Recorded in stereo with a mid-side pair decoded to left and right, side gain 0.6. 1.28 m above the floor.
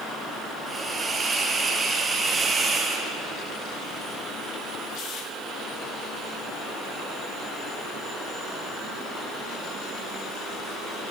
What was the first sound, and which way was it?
A hiss, 25° right.